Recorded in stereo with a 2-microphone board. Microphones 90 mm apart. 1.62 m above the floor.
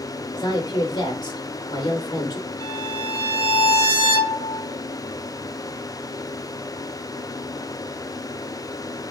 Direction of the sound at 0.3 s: 45° left (ahead or behind).